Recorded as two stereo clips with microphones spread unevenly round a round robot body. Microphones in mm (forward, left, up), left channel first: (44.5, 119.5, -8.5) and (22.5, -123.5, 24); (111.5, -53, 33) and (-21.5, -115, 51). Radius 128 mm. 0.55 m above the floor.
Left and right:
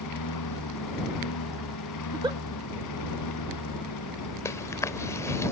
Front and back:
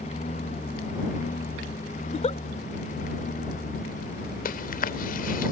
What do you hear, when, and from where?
0.0 s a lawn mower: 85° left; by 5.5 s 80° left
2.0 s a giggle: 20° right
4.5 s chewing: 5° left